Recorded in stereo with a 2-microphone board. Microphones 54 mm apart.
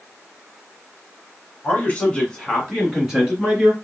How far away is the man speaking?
About 1.9 m.